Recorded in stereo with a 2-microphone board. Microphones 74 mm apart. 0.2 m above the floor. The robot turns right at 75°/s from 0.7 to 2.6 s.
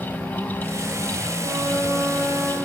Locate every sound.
1.4 s a flute: 70° right, 4.5 m; by 2.5 s 10° left, 4.5 m